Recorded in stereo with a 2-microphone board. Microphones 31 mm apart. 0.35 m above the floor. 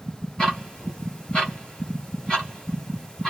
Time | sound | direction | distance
0.4 | ticking | 30° left (ahead or behind) | 1.6 m